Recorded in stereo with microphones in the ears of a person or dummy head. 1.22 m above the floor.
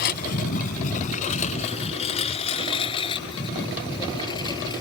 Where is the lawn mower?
50° left (ahead or behind); by 4.8 s 25° left (ahead or behind).